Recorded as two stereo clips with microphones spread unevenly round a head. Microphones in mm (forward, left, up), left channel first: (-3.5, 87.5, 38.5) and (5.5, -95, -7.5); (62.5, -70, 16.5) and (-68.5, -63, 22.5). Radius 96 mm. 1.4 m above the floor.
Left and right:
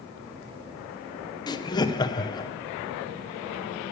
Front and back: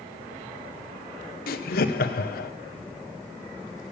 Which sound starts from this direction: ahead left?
Laughter, at 1.5 s.